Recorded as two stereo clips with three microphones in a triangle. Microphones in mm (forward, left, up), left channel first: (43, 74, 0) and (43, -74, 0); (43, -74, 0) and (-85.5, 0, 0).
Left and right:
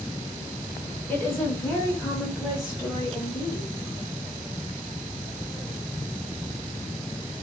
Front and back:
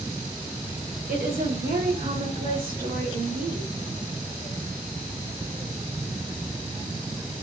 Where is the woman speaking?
165° left, 1.5 m; by 3.7 s 160° left, 3.5 m.